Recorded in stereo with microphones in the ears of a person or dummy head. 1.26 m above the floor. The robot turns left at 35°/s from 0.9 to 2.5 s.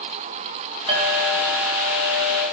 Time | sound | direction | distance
0.9 | a clink | 35° right | 2.5 m